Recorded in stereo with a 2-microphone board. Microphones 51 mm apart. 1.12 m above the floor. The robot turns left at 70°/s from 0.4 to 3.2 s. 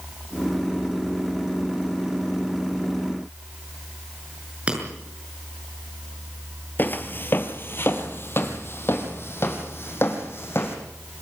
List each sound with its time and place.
4.7 s breaking glass: 25° right (ahead or behind), 6.5 m
6.8 s footsteps: 40° left (ahead or behind), 1.4 m; by 10.8 s 50° left (ahead or behind), 3.5 m